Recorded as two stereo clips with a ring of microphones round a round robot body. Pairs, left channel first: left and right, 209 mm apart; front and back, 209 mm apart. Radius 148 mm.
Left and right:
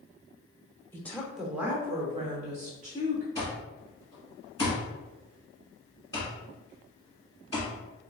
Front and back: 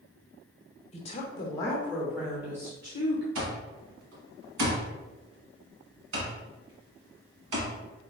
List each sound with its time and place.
0.9 s a woman speaking: 20° left, 1.1 m; by 3.2 s 120° right, 1.4 m
3.4 s an alarm clock: 170° left, 1.7 m